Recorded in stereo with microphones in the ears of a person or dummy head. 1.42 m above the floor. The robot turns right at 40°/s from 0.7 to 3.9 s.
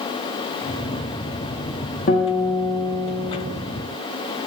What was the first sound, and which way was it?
A guitar, 110° left.